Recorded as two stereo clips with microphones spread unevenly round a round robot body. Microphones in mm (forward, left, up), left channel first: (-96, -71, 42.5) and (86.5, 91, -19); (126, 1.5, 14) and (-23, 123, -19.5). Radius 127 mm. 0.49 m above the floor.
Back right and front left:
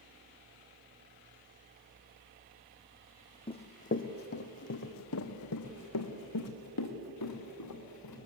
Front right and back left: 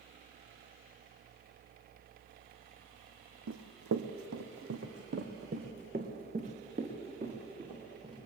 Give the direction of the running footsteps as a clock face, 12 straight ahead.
7 o'clock.